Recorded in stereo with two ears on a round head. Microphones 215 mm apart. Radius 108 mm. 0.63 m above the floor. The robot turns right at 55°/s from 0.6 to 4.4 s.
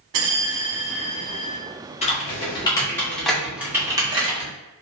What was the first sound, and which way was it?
A bell, 90° right.